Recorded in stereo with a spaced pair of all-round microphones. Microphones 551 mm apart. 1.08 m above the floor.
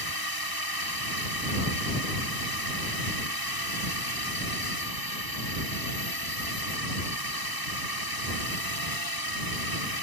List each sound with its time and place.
0.0 s a drone: 40° right (ahead or behind)